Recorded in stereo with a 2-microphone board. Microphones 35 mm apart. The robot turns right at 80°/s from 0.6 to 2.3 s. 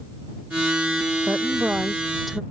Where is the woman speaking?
85° right; by 2.4 s straight ahead.